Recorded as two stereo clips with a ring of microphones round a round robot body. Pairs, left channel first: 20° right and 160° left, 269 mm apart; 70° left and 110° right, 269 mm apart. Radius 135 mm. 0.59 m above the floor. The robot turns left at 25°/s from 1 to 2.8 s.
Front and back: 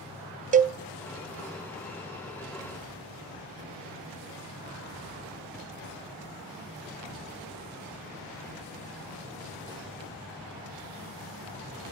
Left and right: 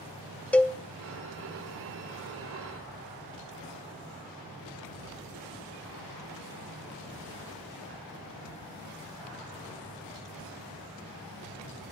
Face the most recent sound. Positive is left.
turn(degrees=100)